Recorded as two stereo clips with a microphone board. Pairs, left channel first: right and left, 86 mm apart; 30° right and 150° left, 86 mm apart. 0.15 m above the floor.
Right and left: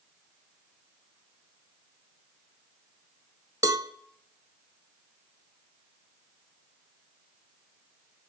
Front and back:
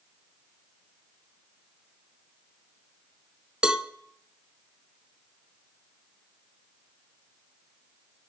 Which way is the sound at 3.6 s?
75° left.